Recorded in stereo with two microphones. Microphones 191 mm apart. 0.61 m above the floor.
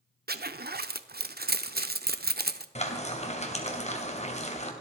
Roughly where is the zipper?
Right.